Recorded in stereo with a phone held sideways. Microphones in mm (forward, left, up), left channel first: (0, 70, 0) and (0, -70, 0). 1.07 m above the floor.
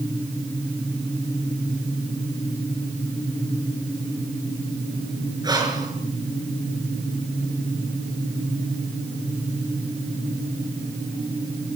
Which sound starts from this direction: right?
Breathing, at 5.4 s.